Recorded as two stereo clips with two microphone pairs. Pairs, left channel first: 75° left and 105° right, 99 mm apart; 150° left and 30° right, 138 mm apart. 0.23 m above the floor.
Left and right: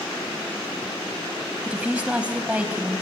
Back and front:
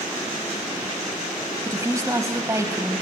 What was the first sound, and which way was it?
A woman speaking, 45° right.